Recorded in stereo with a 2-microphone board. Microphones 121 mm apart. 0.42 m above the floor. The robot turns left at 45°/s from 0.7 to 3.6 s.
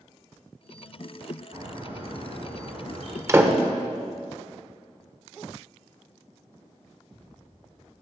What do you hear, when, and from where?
1.5 s a bird: 30° right, 2 m; by 3.2 s 105° right, 2 m
3.3 s a door slam: 25° right (ahead or behind), 0.8 m; by 3.6 s 15° right (ahead or behind), 0.8 m